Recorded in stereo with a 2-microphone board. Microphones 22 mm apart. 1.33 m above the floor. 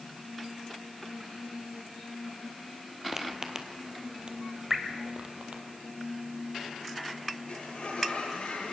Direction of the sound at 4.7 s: 10° right (ahead or behind).